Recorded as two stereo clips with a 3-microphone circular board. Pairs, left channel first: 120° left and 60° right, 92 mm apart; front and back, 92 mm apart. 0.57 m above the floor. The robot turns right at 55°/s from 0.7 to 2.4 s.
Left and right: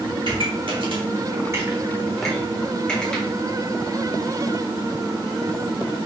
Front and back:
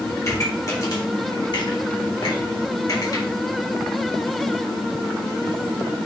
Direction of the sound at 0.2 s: 55° right.